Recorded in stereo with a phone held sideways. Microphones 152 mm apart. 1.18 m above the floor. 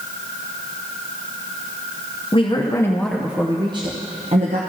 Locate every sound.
2.3 s a woman speaking: 40° left (ahead or behind), 0.8 m; by 4.6 s 55° right (ahead or behind), 1.0 m